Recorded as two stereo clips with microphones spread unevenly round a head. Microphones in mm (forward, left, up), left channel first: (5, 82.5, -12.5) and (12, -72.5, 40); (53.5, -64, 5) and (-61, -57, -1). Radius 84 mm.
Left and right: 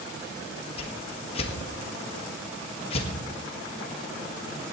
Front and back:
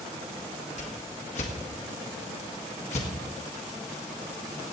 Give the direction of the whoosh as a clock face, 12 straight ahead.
11 o'clock.